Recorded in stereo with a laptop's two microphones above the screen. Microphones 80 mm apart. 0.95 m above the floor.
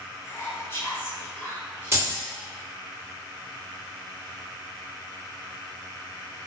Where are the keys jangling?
30° right (ahead or behind), 0.8 m.